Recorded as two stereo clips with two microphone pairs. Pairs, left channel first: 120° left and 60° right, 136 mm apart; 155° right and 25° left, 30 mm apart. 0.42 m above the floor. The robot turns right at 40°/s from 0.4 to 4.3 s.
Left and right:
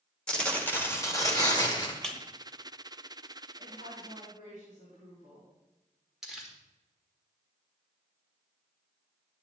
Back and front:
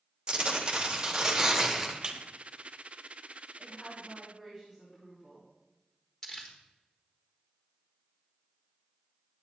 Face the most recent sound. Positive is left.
turn(degrees=-140)